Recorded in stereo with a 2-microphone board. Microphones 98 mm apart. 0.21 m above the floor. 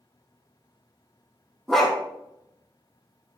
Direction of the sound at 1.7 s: 5° left (ahead or behind).